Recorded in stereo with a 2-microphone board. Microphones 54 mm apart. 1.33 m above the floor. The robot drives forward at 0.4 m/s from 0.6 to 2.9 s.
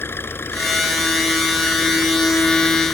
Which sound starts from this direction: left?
An engine running, at 0.0 s.